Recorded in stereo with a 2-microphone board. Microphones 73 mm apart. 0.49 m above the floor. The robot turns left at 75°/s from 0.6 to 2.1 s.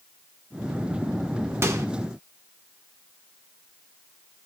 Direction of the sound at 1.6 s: 35° right (ahead or behind).